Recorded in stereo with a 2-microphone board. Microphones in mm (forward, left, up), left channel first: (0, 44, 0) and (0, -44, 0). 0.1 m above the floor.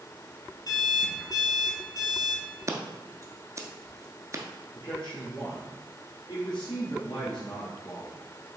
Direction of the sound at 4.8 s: 55° left (ahead or behind).